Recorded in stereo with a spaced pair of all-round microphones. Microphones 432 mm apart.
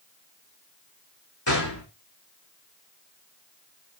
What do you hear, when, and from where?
1.5 s a gunshot: 75° left (ahead or behind), 5 m